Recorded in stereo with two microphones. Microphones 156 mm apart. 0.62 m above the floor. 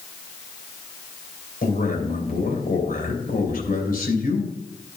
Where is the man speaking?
70° left (ahead or behind), 3 m.